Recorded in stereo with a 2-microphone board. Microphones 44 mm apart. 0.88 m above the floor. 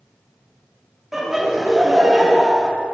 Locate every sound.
1.1 s laughter: 5° right (ahead or behind), 1.5 m